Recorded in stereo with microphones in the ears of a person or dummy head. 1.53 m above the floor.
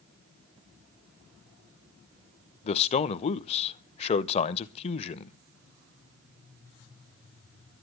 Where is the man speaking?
35° left (ahead or behind), 0.8 m.